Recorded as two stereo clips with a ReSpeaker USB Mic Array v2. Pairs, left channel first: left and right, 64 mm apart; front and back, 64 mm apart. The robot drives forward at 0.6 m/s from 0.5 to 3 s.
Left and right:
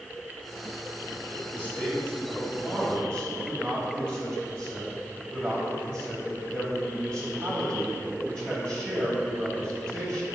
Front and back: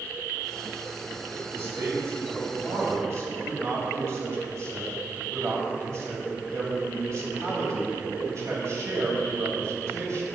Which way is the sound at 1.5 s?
145° left.